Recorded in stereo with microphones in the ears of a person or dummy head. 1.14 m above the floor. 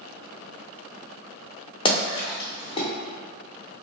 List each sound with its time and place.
1.9 s a splash: 20° left (ahead or behind), 0.9 m